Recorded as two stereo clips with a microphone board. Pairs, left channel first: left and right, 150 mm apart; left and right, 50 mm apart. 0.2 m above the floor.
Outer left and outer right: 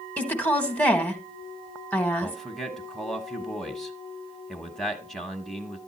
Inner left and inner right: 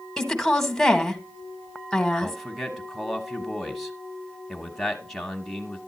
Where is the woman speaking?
10° left (ahead or behind), 1.2 m.